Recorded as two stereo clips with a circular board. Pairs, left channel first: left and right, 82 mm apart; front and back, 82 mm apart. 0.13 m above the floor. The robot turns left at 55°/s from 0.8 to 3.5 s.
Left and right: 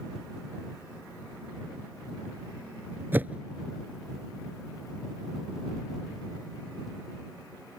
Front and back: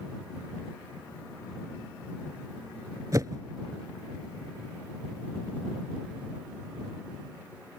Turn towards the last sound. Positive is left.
turn(degrees=-170)